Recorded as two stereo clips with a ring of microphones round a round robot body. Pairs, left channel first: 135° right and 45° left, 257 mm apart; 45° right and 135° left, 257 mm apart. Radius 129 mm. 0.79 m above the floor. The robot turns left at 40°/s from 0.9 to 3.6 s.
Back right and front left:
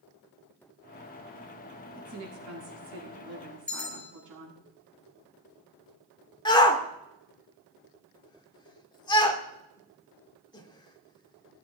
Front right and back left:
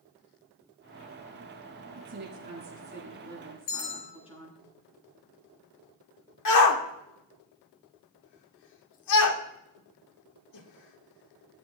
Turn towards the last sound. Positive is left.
turn(degrees=-60)